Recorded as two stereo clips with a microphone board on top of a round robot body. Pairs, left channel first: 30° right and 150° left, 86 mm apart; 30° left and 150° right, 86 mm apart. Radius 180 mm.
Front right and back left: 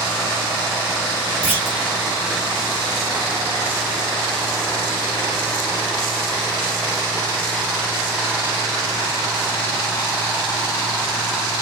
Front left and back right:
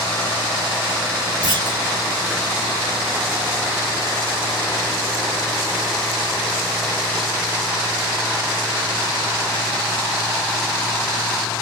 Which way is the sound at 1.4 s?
140° right.